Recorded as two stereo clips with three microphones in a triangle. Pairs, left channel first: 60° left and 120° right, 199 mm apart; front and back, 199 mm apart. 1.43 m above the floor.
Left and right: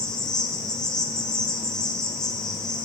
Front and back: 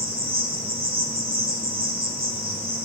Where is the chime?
No chime in this recording.